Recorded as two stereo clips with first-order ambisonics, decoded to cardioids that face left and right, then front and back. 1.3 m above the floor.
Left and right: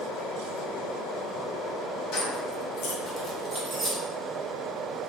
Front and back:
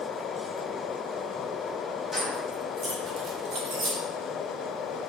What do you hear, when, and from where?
2.1 s keys jangling: 80° left, 1.1 m; by 4.0 s 155° right, 1.0 m